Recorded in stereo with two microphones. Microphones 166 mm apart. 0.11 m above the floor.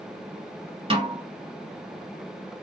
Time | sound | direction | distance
0.9 | a snare drum | 30° right (ahead or behind) | 1.4 m